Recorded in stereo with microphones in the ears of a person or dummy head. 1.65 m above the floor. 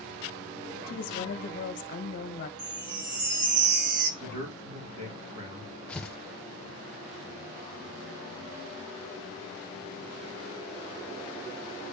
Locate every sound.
0.9 s a woman speaking: 45° left (ahead or behind), 1.2 m
2.6 s a chime: 55° right (ahead or behind), 1.4 m
4.2 s a man speaking: 70° right (ahead or behind), 3 m
5.9 s tearing paper: 5° left (ahead or behind), 0.7 m